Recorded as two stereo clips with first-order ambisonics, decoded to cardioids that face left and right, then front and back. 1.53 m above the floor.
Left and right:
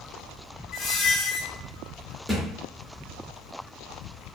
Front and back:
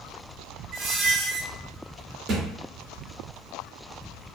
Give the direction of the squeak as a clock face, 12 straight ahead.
8 o'clock.